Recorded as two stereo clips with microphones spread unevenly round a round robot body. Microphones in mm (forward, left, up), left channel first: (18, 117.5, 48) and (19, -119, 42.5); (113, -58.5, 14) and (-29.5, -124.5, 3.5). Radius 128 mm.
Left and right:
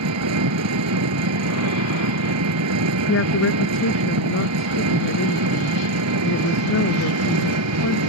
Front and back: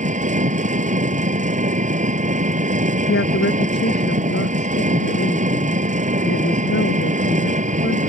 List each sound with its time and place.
0.0 s an engine running: 115° right
3.1 s a woman speaking: 55° left